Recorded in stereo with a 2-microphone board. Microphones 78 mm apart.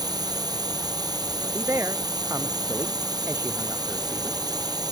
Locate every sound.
0.0 s a drone: 55° right (ahead or behind)
1.4 s a man speaking: 35° right (ahead or behind)